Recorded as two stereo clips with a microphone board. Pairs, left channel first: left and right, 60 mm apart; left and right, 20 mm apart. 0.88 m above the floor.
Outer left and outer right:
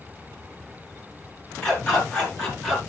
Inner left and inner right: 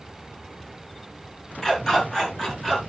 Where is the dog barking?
15° left (ahead or behind), 5.5 m; by 2.8 s 10° left (ahead or behind), 6 m.